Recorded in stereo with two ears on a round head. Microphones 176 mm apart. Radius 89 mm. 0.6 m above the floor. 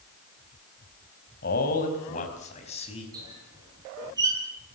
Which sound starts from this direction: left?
A man speaking, at 1.4 s.